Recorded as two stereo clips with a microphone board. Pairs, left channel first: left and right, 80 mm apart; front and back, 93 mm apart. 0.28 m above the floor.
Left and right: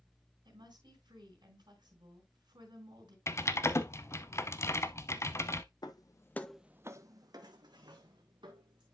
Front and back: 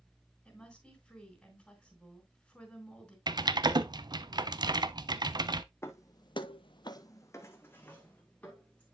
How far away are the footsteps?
About 0.9 m.